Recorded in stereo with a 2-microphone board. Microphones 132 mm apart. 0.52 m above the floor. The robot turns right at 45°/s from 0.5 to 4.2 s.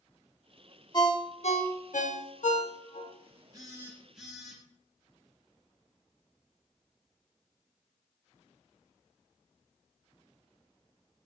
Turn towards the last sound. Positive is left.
turn(degrees=-5)